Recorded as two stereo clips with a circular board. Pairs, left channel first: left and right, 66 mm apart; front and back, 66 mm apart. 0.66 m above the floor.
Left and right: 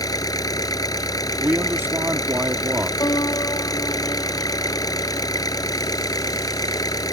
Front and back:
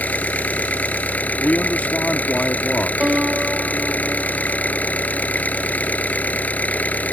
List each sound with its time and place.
0.0 s an engine running: 70° left
1.4 s a man speaking: 55° right
3.0 s a piano: 110° left